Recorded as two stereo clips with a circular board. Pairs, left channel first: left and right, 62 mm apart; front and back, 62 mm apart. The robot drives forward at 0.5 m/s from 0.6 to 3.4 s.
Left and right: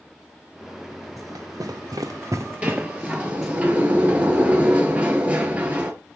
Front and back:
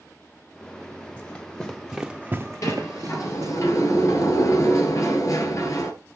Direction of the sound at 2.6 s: 20° right.